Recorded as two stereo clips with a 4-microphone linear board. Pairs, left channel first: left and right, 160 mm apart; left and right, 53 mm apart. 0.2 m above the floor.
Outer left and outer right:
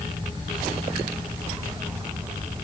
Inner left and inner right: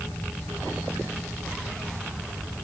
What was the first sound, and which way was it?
Only background noise.